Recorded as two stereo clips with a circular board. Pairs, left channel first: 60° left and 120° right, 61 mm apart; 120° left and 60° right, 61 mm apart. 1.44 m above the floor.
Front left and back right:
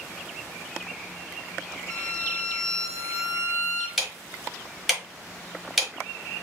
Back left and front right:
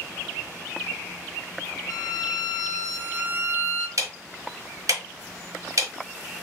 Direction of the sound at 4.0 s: 35° right.